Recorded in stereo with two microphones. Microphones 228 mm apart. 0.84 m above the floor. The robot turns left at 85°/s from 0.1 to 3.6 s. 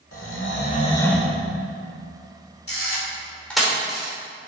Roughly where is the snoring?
Left.